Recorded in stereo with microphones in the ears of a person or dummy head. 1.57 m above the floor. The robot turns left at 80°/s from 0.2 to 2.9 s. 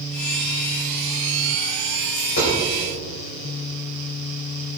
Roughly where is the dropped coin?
Left.